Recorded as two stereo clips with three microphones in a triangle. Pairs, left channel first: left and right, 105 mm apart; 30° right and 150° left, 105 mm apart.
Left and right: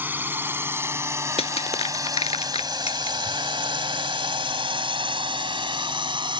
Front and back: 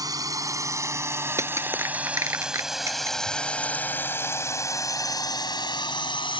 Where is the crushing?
90° left.